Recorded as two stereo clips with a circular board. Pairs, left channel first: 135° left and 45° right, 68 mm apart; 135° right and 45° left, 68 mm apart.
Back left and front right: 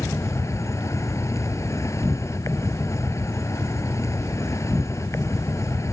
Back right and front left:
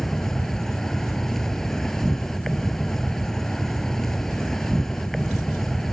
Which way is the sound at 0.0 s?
140° left.